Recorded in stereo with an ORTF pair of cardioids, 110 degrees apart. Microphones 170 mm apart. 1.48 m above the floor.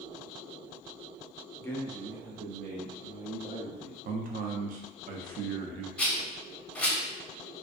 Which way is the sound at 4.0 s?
55° right.